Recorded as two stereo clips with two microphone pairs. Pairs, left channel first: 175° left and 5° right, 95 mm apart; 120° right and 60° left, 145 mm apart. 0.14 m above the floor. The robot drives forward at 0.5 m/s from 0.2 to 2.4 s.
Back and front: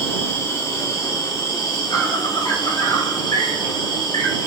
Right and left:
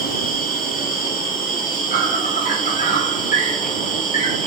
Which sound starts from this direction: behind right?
An insect, at 0.0 s.